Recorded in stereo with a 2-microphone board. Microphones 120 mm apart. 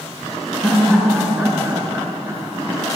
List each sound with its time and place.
0.6 s laughter: 5° right (ahead or behind), 3 m; by 2.8 s 30° right (ahead or behind), 4 m